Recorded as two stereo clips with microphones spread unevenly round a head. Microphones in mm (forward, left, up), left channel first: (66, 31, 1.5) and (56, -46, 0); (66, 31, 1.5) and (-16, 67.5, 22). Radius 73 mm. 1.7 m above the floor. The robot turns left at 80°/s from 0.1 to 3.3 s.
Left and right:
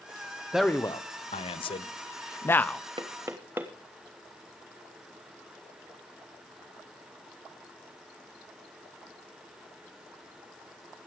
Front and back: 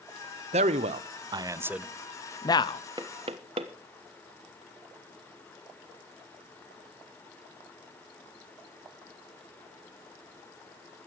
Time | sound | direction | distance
0.5 | a man speaking | straight behind | 1.0 m
3.0 | knocking | 145° right | 1.2 m